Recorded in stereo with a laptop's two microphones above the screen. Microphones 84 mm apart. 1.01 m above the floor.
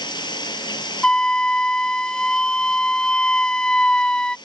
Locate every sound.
0.0 s running water: 65° left (ahead or behind)
1.0 s a flute: 10° left (ahead or behind)